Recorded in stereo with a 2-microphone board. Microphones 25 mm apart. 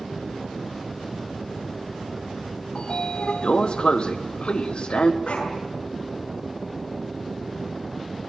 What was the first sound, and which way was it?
A sliding door, 50° left (ahead or behind).